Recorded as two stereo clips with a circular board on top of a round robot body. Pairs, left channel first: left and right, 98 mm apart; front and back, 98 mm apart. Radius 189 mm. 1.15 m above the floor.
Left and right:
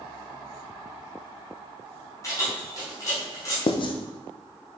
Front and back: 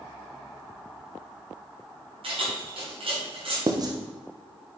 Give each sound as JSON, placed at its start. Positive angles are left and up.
{"t": 2.2, "sound": "keys jangling", "azimuth_deg": 150, "distance_m": 2.5}
{"t": 3.7, "sound": "writing", "azimuth_deg": 130, "distance_m": 0.5}